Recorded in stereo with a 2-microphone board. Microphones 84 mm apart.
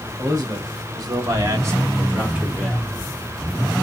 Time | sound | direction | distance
0.2 | a man speaking | 45° right (ahead or behind) | 2 m